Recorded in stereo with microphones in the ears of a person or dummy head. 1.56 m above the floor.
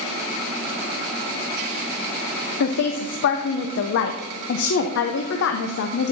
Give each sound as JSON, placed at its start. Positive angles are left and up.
{"t": 2.6, "sound": "a woman speaking", "side_deg": 65, "distance_m": 0.6}